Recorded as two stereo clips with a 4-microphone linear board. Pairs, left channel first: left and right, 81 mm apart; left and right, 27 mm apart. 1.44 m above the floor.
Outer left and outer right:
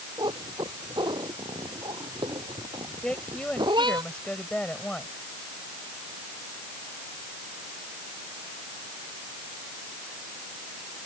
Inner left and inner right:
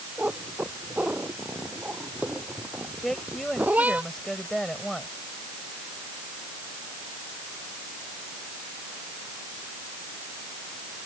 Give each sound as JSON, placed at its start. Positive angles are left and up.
{"t": 0.2, "sound": "a cat meowing", "side_deg": -70}
{"t": 3.0, "sound": "a woman speaking", "side_deg": 15}